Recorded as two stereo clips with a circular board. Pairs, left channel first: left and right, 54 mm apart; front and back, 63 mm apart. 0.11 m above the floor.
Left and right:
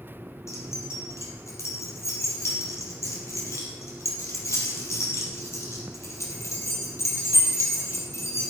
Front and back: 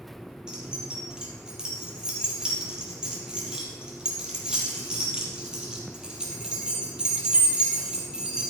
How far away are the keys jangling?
About 2.5 m.